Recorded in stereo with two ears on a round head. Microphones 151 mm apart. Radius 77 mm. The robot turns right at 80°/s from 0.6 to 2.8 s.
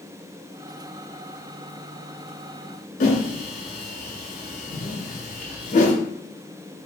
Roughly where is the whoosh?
Left.